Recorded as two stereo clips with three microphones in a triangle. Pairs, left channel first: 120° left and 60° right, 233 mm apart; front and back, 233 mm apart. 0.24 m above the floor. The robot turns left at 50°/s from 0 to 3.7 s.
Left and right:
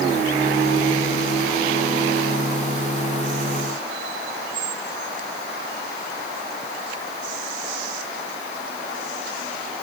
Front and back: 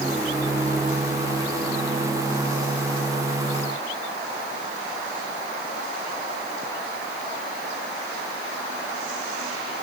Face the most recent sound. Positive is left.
No sound to turn to.